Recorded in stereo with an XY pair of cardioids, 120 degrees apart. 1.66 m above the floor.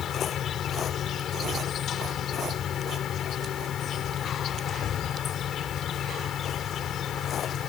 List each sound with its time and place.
0.0 s an insect: 55° left